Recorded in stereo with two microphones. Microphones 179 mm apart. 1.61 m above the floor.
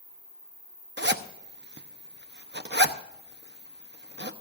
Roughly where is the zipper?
Right.